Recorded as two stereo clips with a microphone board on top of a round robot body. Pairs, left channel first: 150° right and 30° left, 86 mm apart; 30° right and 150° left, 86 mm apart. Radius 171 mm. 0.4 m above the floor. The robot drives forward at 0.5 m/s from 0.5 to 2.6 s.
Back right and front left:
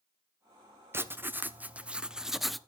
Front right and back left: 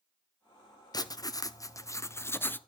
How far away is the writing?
About 1.6 m.